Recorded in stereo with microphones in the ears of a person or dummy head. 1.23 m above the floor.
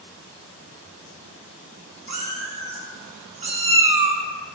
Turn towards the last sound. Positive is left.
turn(degrees=-20)  # may be behind; listen again after turning